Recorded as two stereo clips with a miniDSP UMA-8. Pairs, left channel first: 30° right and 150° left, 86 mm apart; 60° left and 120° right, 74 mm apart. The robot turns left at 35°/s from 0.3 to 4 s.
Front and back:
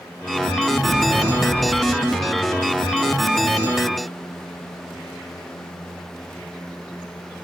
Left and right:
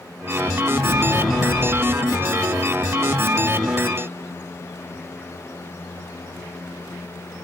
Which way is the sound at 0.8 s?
70° left.